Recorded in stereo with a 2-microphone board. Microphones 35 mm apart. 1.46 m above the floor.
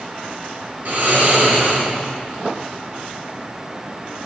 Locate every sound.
0.8 s snoring: 60° right (ahead or behind), 3 m